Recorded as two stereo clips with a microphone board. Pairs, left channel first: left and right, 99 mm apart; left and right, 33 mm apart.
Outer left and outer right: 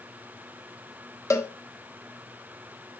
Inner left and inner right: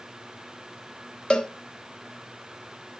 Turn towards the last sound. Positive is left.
turn(degrees=30)  # may be behind; listen again after turning